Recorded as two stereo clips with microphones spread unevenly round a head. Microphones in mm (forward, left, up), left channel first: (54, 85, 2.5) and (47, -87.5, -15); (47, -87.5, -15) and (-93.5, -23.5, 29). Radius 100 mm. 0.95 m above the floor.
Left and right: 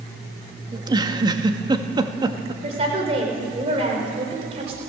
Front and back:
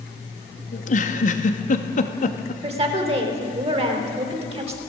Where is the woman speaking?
155° right, 4 m.